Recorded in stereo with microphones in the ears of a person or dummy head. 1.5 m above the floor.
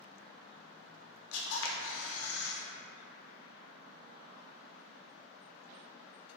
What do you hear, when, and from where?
1.3 s a camera shutter: 75° left (ahead or behind), 0.5 m